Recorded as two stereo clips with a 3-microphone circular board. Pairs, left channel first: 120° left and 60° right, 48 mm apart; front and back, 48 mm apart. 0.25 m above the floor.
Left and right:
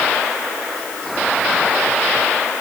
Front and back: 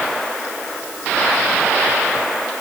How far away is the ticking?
I don't hear ticking.